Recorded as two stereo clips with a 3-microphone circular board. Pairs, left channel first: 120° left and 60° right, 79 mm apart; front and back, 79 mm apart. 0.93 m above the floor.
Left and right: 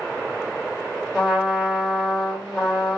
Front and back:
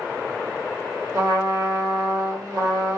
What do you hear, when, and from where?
1.1 s a trumpet: 140° right, 1.6 m